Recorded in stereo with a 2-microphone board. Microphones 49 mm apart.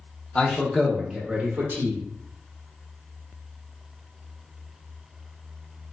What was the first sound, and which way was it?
A man speaking, 20° left (ahead or behind).